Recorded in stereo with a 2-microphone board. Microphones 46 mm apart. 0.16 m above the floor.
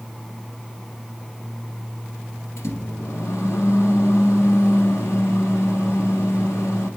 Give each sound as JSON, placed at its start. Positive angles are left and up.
{"t": 2.6, "sound": "a microwave", "side_deg": 65, "distance_m": 1.9}